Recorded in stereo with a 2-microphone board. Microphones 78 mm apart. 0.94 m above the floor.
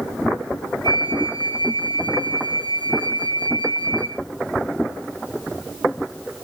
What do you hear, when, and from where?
0.8 s a flute: 75° left (ahead or behind), 1.8 m